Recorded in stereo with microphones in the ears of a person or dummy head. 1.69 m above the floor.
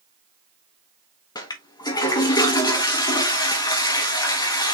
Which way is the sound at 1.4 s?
20° left (ahead or behind).